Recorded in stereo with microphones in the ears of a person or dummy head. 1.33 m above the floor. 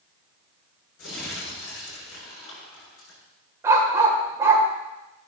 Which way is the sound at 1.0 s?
70° left (ahead or behind).